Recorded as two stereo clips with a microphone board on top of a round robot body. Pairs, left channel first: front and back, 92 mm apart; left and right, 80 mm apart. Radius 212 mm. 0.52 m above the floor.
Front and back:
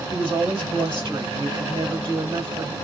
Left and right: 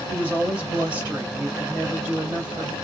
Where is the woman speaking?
160° right, 2.5 m.